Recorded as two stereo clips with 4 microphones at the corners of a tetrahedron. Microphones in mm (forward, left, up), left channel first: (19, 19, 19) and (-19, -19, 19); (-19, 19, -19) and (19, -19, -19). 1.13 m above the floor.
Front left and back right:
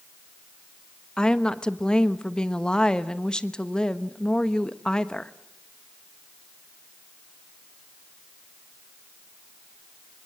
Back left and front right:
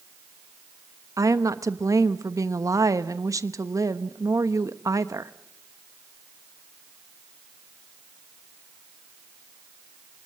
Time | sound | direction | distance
1.2 | a woman speaking | 30° right | 1.1 m